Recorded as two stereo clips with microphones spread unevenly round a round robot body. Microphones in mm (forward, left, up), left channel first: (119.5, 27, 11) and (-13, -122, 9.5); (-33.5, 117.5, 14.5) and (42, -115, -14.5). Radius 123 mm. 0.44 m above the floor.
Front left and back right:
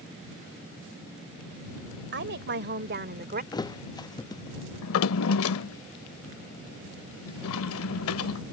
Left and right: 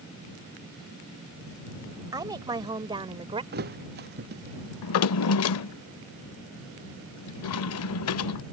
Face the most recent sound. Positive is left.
turn(degrees=80)